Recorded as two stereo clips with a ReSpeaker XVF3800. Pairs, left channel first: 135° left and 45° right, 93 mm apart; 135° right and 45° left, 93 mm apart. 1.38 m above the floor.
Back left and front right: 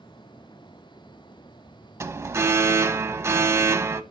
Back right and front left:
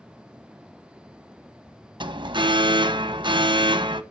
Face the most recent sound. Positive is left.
turn(degrees=15)